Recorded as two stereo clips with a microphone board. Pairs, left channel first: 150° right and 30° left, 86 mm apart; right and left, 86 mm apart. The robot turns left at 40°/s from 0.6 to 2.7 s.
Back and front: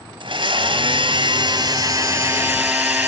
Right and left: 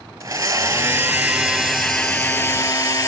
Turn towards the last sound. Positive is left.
turn(degrees=-35)